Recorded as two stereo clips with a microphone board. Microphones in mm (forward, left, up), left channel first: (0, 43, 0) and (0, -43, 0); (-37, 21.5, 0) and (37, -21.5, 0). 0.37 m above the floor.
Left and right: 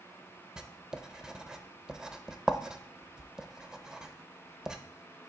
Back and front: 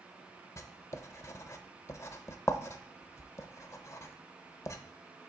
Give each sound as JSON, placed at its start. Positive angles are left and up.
{"t": 0.6, "sound": "writing", "azimuth_deg": -170, "distance_m": 0.5}